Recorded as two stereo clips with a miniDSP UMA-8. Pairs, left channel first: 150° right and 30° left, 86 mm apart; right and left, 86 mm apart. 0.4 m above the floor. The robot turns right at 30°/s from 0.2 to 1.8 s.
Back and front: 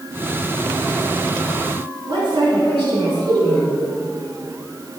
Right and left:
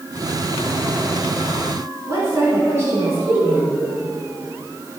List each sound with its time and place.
2.1 s a woman speaking: 35° left, 4 m